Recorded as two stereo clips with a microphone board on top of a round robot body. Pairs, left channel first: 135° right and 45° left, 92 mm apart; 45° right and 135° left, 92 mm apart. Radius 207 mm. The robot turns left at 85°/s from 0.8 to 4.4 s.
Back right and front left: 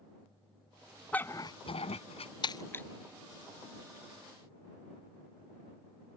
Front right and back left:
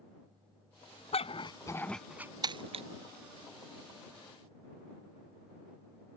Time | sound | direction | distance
1.1 | a dog barking | 60° right | ?
2.4 | breaking glass | 175° right | ?